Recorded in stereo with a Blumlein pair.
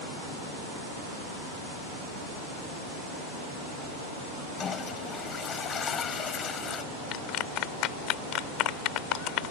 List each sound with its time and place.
4.6 s a toilet flushing: 25° left
7.1 s a clap: 40° left